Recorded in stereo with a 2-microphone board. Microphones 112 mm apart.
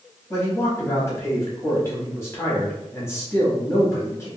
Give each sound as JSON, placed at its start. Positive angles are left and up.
{"t": 0.3, "sound": "a man speaking", "side_deg": 25, "distance_m": 1.0}